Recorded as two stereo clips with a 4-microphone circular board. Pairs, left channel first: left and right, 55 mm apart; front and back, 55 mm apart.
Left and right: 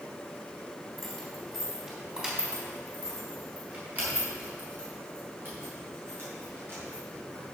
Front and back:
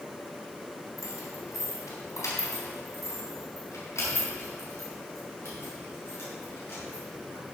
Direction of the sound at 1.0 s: 5° left.